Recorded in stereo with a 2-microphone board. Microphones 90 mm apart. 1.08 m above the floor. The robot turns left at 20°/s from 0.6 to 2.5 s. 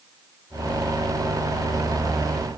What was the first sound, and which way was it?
Only background noise.